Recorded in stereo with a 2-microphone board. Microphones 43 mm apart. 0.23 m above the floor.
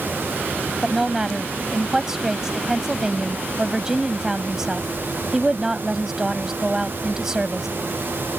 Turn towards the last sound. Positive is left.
turn(degrees=-15)  # may be behind; listen again after turning